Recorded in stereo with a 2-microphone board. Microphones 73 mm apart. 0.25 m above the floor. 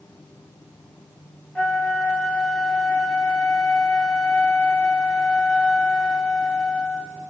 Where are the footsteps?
No footsteps in this recording.